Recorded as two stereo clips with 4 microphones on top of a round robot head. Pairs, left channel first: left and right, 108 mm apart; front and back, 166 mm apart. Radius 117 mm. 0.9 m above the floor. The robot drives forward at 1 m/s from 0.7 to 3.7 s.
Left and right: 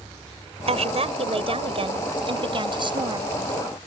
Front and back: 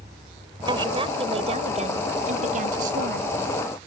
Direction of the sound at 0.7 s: 115° right.